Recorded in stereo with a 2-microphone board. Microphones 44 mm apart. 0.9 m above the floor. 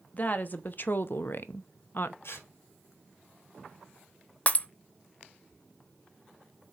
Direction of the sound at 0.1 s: 40° left (ahead or behind).